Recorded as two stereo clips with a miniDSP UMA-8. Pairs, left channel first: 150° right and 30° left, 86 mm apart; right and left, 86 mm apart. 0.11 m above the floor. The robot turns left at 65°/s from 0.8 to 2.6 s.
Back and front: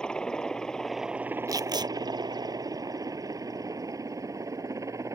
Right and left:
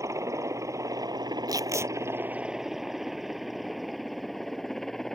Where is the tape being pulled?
65° left; by 1.9 s 35° left.